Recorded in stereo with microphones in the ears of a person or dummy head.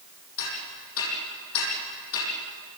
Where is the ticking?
80° left, 9.5 m.